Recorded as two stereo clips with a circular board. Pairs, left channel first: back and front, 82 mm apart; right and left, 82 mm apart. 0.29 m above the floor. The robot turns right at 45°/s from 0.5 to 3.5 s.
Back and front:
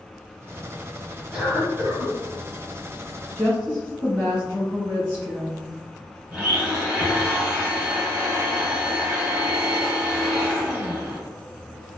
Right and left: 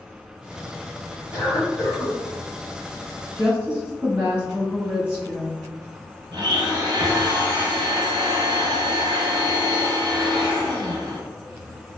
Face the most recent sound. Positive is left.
turn(degrees=70)